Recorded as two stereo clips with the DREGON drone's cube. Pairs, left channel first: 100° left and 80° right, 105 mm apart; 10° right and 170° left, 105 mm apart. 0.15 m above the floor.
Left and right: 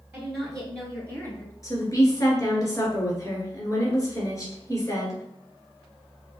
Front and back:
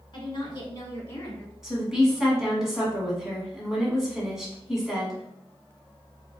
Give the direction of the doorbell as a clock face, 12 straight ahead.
No doorbell in this recording.